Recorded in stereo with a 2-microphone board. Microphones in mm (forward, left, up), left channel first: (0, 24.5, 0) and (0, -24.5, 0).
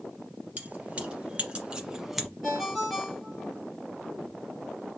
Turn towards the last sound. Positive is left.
turn(degrees=-5)  # may be behind; listen again after turning